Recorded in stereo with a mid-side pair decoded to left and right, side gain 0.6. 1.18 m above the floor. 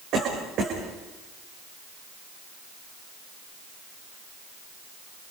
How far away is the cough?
About 5.5 m.